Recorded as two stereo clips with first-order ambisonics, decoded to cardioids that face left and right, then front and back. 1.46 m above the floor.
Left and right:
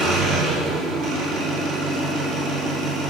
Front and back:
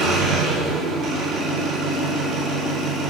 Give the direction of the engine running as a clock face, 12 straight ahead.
4 o'clock.